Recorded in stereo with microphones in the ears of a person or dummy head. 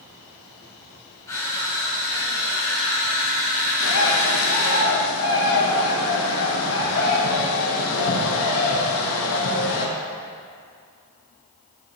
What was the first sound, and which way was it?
Crushing, 20° left (ahead or behind).